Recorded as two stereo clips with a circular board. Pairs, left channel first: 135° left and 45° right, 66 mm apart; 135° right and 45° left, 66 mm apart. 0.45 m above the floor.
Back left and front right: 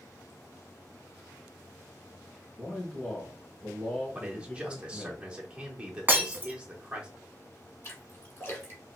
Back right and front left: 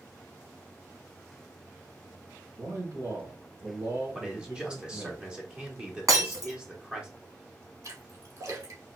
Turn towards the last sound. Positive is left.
turn(degrees=80)